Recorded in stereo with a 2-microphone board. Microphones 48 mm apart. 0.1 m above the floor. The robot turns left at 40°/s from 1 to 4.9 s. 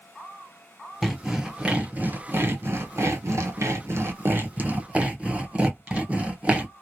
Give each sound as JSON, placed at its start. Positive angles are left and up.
{"t": 1.0, "sound": "sawing", "side_deg": 5, "distance_m": 0.9}